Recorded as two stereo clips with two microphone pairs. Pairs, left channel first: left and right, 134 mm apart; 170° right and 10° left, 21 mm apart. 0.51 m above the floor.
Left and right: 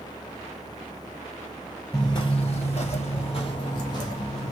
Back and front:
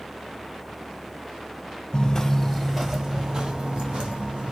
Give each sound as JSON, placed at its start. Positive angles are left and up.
{"t": 1.9, "sound": "footsteps", "azimuth_deg": 150, "distance_m": 0.8}